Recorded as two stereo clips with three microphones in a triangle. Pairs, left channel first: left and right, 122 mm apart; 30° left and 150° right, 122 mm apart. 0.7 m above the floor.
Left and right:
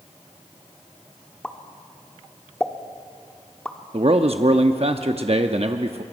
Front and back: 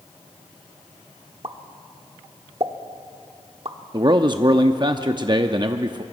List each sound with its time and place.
1.4 s a pop: 170° left, 1.1 m
3.9 s a man speaking: 105° right, 0.7 m